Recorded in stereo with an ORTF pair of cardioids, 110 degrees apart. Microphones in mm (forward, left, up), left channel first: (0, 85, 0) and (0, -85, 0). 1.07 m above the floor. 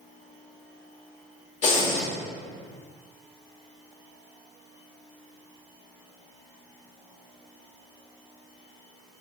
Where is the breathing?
45° left, 1.6 m.